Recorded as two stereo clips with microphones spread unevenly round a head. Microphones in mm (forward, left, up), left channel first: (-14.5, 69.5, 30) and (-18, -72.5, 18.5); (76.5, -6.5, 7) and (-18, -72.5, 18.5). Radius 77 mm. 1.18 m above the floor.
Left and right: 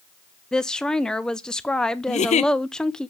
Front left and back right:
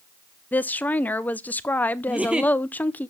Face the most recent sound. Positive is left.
turn(degrees=130)